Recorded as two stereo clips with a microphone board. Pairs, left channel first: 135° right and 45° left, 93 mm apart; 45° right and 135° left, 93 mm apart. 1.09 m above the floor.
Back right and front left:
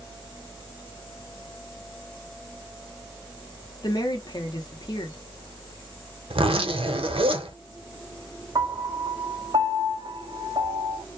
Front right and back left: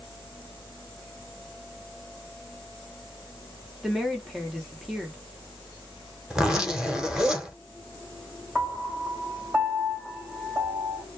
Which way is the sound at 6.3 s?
50° left.